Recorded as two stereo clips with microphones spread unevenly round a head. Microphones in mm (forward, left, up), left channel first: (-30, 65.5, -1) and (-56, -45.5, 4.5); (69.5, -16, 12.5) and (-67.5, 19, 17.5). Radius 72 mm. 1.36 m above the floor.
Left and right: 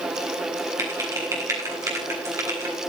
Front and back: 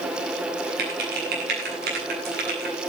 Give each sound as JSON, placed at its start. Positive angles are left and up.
{"t": 0.8, "sound": "typing on a keyboard", "azimuth_deg": -165, "distance_m": 9.5}